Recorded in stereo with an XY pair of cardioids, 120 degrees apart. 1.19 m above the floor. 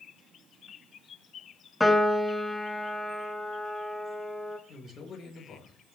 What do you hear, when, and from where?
1.8 s a piano: 10° left, 1.2 m
4.7 s a man speaking: 50° left, 5 m